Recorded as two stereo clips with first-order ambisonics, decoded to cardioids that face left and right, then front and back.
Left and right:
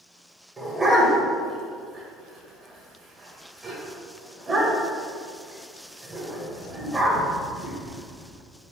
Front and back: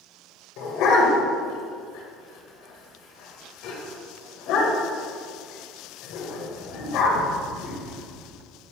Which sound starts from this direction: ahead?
A dog barking, at 0.6 s.